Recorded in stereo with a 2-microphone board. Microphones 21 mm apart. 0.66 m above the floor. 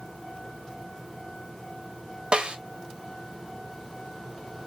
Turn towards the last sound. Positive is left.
turn(degrees=-50)  # may be behind; listen again after turning